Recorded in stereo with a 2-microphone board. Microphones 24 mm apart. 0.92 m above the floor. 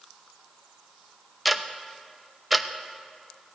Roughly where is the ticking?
Centre.